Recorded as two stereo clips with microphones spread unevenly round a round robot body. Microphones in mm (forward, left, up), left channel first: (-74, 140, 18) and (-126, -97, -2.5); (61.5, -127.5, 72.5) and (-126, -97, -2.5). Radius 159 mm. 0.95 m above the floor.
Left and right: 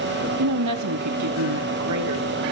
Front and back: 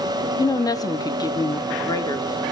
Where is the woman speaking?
85° right, 1.0 m; by 2.4 s 80° right, 2 m.